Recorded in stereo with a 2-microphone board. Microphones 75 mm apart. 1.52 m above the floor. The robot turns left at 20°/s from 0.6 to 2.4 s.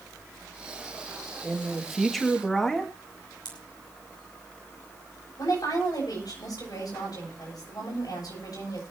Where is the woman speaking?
60° left (ahead or behind), 9 m.